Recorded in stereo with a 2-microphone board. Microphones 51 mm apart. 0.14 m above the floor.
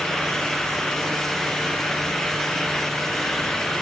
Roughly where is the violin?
No violin in this recording.